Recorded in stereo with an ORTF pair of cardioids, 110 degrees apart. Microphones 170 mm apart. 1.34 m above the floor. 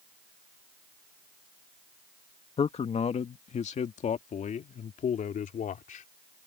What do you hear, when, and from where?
2.6 s a man speaking: 35° left; by 6.0 s 50° left